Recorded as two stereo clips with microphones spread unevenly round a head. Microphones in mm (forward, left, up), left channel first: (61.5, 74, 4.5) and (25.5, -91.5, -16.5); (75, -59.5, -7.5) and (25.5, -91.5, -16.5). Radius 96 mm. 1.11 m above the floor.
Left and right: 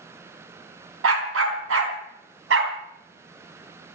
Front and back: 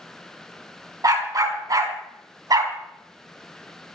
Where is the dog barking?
125° right, 4.5 m; by 2.8 s 140° right, 3.5 m.